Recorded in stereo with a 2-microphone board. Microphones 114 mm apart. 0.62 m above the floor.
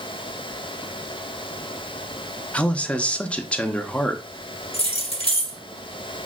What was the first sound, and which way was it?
A man speaking, 10° left (ahead or behind).